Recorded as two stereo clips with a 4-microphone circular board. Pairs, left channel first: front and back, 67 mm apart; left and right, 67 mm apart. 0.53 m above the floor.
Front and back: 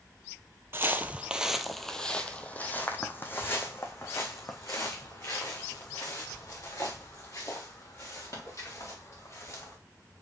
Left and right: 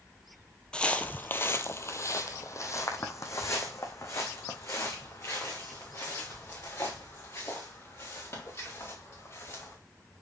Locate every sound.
0.7 s footsteps: 160° left, 0.6 m; by 9.8 s 40° left, 4.5 m